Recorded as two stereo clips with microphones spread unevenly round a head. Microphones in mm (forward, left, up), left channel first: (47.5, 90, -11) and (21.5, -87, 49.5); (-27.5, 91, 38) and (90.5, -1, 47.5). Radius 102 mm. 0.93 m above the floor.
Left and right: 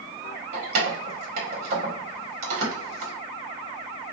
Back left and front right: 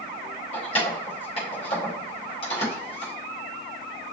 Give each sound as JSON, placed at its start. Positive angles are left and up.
{"t": 0.5, "sound": "keys jangling", "azimuth_deg": -155, "distance_m": 0.8}